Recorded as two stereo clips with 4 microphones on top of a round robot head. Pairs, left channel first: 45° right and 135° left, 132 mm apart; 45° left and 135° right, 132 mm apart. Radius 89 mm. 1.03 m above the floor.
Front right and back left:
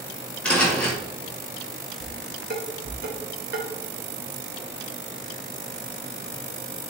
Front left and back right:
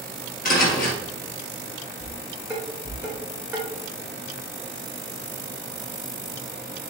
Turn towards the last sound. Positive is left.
turn(degrees=140)